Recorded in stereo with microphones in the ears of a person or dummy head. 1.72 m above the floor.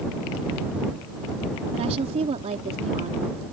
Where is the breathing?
I don't hear breathing.